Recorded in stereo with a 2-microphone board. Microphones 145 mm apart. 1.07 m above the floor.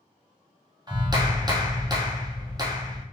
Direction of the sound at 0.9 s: 30° right (ahead or behind).